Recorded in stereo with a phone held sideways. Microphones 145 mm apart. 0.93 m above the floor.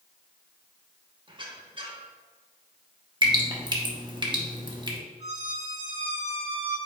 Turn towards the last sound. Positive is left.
turn(degrees=-40)  # may be behind; listen again after turning